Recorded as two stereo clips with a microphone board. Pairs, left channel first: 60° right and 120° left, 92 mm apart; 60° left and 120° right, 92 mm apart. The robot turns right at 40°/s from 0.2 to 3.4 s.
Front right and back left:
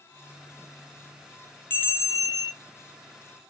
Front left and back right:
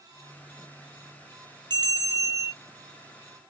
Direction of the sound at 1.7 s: 115° right.